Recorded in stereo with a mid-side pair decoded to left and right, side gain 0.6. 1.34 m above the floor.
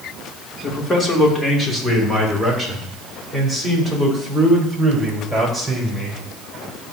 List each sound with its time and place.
0.6 s a man speaking: 25° left, 3 m; by 6.2 s 5° right, 6 m